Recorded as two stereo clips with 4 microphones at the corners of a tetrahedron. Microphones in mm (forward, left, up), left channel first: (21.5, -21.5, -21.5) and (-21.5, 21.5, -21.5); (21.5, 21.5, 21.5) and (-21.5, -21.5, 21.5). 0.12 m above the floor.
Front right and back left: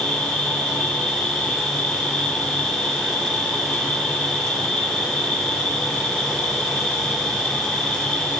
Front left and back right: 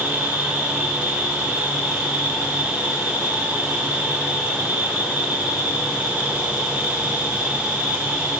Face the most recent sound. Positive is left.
turn(degrees=-90)